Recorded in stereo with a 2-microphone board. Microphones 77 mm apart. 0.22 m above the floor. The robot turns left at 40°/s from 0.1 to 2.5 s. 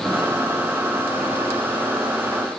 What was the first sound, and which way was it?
Only background noise.